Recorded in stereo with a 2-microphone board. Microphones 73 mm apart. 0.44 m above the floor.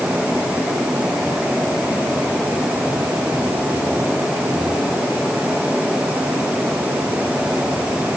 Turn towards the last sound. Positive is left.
No sound to turn to.